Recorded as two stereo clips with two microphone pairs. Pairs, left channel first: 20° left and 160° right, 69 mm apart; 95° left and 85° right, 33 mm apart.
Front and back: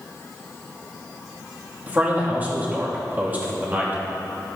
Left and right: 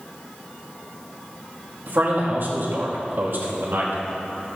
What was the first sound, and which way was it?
A man speaking, 95° right.